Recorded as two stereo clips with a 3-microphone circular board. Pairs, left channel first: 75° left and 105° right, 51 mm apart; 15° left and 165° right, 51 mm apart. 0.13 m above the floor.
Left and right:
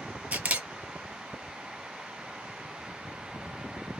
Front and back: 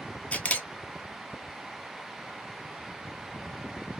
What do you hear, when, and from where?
0.3 s a camera shutter: 45° right, 0.6 m